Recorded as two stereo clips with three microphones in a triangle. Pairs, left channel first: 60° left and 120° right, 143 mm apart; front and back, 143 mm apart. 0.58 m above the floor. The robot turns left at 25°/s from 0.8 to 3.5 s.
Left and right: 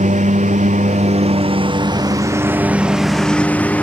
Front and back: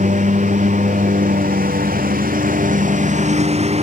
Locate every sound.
0.0 s a lawn mower: 155° right; by 3.8 s 140° left